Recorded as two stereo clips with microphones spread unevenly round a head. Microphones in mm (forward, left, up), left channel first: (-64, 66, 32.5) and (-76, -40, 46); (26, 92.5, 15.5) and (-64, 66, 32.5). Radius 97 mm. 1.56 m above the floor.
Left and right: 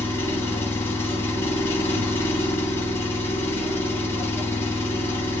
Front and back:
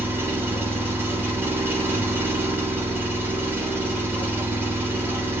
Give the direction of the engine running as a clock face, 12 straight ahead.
7 o'clock.